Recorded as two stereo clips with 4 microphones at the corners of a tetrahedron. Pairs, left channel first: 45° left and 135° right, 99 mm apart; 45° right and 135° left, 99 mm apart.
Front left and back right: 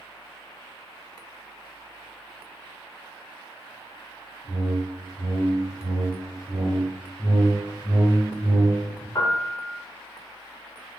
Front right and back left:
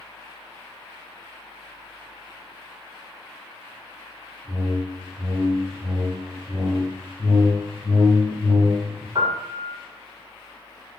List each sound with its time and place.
4.4 s a whoosh: 100° right, 1.0 m
7.2 s a whoosh: 25° right, 0.9 m
9.2 s a piano: 100° left, 0.5 m